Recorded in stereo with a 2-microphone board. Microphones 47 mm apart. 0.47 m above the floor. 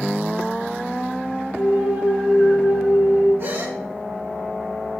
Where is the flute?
65° right (ahead or behind), 4 m.